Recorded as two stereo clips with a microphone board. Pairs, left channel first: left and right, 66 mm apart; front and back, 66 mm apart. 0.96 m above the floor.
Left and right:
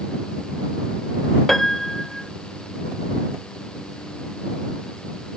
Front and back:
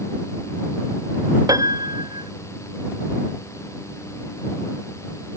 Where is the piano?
175° left.